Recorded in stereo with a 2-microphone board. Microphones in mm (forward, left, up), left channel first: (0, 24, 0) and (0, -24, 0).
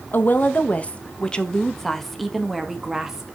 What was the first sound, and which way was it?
A woman speaking, 45° left (ahead or behind).